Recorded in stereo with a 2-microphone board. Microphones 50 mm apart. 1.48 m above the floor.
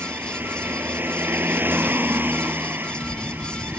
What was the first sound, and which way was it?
A vehicle, 45° right (ahead or behind).